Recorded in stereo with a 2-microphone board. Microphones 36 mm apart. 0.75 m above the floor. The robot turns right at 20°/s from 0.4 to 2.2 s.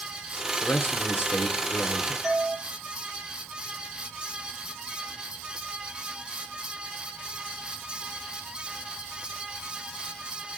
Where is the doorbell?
Centre (ahead or behind), 7.5 m.